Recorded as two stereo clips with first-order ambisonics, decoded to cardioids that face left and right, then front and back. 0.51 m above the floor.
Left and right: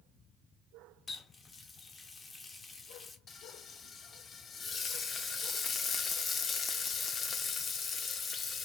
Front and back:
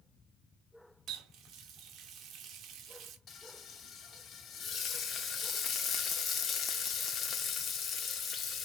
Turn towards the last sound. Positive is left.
turn(degrees=45)